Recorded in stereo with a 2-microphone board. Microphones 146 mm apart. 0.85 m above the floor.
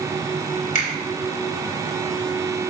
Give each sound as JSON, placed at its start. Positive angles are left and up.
{"t": 0.8, "sound": "a finger snap", "side_deg": 70, "distance_m": 3.5}